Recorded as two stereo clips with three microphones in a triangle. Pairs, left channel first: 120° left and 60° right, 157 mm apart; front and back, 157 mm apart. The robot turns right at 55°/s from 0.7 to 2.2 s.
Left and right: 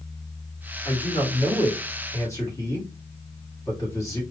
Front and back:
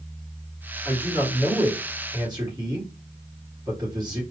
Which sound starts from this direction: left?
A man speaking, at 0.8 s.